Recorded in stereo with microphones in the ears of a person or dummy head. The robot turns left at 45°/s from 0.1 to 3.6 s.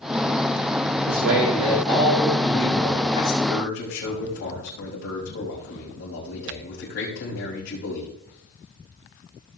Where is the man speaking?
125° right, 6.5 m; by 8.1 s 120° left, 6.5 m.